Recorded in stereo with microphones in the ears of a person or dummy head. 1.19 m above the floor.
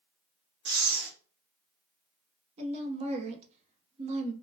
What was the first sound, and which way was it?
Breathing, 55° right (ahead or behind).